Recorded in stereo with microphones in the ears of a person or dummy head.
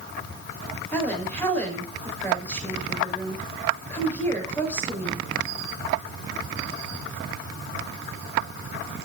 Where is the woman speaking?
10° left (ahead or behind), 5 m.